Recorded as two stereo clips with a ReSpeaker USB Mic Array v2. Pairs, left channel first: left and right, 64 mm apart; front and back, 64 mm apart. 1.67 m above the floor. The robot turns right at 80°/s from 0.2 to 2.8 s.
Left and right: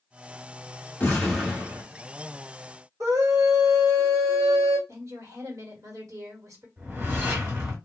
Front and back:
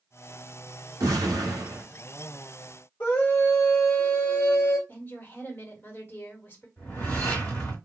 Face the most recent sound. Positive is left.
turn(degrees=-60)